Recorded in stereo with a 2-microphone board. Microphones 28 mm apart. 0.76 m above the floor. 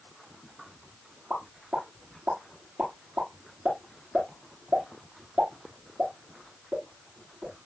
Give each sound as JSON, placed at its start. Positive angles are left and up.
{"t": 1.3, "sound": "a pop", "side_deg": -85, "distance_m": 9.5}